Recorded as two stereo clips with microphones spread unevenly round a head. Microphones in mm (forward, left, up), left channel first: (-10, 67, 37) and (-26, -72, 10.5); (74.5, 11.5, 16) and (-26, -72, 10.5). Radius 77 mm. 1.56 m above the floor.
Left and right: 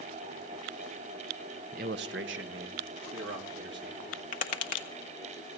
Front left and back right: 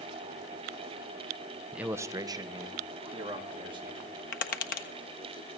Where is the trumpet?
I don't hear a trumpet.